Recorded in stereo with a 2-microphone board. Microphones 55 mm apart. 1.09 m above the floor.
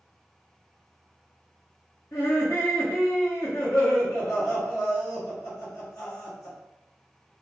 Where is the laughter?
65° left (ahead or behind), 1.3 m.